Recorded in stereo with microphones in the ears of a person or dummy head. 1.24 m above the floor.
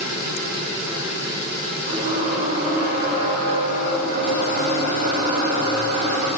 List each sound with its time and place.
1.9 s a squeak: 45° right (ahead or behind), 2 m